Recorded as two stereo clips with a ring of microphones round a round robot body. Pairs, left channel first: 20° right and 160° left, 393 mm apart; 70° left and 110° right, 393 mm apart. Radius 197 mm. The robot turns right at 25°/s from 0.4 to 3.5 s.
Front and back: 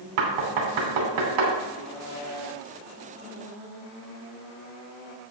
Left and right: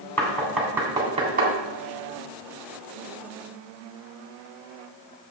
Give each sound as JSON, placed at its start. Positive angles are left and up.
{"t": 0.2, "sound": "knocking", "azimuth_deg": 155, "distance_m": 3.0}